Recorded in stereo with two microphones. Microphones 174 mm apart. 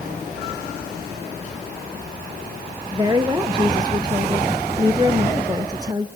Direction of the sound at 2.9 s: 20° right (ahead or behind).